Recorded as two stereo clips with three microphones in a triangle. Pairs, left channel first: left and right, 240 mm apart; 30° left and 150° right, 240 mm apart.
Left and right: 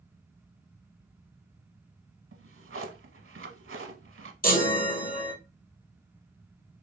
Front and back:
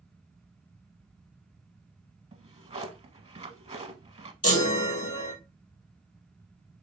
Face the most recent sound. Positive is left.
turn(degrees=40)